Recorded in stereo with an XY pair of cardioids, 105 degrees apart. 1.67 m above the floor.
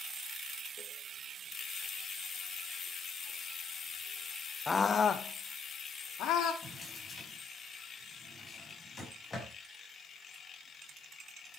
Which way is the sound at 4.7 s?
25° left.